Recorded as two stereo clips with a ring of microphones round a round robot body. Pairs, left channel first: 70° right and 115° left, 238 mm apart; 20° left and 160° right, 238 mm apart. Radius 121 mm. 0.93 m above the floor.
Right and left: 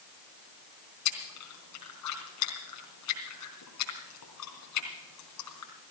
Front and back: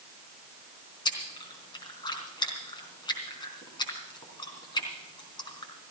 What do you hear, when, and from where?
1.1 s chewing: 50° right, 3.5 m